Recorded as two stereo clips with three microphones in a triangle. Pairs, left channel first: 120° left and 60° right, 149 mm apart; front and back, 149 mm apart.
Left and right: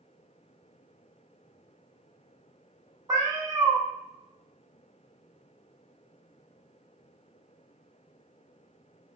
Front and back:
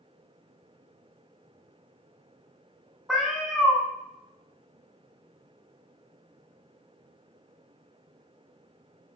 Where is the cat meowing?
100° right, 0.6 m.